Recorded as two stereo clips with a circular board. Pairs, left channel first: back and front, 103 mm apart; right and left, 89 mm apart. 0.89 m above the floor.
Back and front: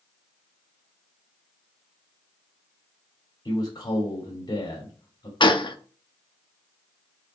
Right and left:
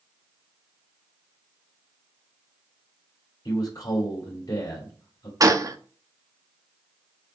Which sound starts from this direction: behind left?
A gunshot, at 5.4 s.